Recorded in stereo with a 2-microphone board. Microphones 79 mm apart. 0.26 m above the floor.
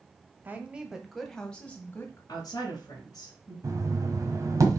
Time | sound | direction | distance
0.5 | a woman speaking | 25° right (ahead or behind) | 1.3 m
2.3 | a woman speaking | 50° left (ahead or behind) | 3.5 m
3.6 | knocking | 40° right (ahead or behind) | 1.5 m